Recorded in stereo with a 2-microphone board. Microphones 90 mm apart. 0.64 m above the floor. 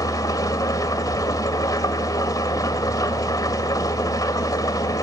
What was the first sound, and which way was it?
An engine running, 45° left (ahead or behind).